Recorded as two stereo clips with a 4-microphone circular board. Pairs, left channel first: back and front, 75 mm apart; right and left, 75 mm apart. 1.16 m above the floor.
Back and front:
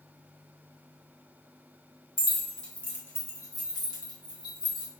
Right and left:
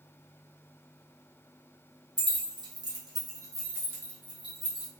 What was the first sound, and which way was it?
Keys jangling, 85° left.